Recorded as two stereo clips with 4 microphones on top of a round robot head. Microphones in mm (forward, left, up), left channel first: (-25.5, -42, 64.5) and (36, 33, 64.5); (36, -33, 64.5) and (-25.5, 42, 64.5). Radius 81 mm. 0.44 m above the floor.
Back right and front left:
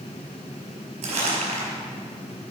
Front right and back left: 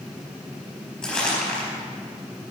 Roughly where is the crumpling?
Ahead left.